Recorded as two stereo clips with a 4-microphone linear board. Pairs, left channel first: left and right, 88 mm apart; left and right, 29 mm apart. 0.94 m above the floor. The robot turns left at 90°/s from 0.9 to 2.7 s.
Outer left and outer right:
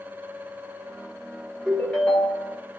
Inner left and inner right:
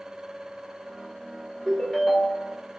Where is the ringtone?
170° right, 1.8 m; by 2.6 s 110° left, 1.8 m.